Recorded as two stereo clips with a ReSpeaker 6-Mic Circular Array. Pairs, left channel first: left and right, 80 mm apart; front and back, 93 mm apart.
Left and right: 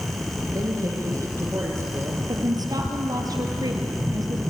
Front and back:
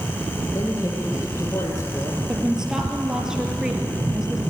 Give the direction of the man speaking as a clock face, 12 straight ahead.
2 o'clock.